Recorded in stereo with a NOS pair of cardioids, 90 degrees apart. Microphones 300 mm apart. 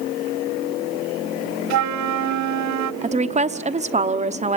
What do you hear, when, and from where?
1.7 s a flute: 65° right, 0.5 m
3.0 s a woman speaking: 25° right, 1.0 m